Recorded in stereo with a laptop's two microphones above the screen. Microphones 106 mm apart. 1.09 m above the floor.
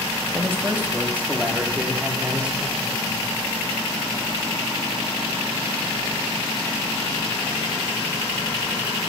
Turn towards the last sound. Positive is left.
turn(degrees=-10)  # may be behind; listen again after turning